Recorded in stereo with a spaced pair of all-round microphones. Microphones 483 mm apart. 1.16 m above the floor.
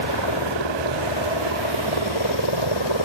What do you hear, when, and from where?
0.0 s a helicopter: 65° left (ahead or behind)